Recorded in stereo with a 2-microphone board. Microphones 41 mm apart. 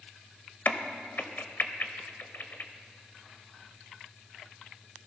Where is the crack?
55° left (ahead or behind), 0.8 m.